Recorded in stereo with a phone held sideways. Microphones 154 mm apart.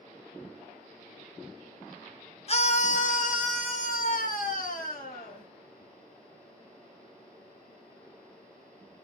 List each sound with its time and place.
2.5 s a scream: 40° left (ahead or behind), 0.6 m; by 5.5 s 65° left (ahead or behind), 2.5 m